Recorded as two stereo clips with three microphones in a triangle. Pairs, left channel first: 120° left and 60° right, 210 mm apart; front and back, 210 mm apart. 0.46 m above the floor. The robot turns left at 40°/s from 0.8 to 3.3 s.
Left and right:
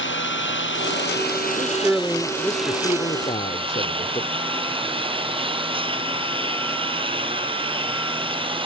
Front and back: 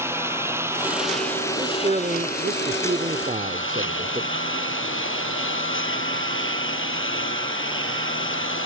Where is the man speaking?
130° right; by 4.3 s 160° left.